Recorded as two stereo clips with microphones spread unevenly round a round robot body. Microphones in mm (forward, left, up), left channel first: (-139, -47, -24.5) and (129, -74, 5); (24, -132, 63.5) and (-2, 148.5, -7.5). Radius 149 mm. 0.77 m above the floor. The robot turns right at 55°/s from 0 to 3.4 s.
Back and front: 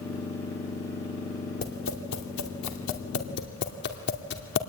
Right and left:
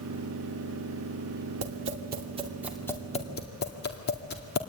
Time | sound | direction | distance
1.6 | tapping | 115° left | 2.5 m